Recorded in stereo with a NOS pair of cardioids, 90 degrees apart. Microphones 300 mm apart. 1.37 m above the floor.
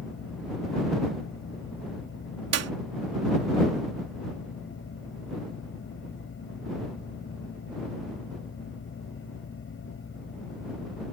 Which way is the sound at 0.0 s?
40° left.